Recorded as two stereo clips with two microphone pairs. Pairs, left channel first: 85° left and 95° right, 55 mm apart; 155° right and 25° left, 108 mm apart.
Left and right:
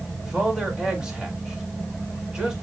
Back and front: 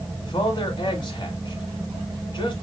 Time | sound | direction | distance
0.2 | a man speaking | 165° right | 2 m